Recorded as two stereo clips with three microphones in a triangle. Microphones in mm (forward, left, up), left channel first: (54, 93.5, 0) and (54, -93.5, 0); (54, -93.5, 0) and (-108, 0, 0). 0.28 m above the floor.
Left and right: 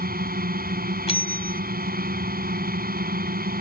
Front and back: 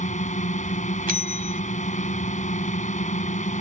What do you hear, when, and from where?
0.0 s a drone: 70° right
1.1 s a bell: 135° left